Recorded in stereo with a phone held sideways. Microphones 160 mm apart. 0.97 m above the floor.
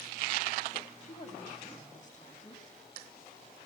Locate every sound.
1.0 s a woman speaking: 45° left (ahead or behind), 6 m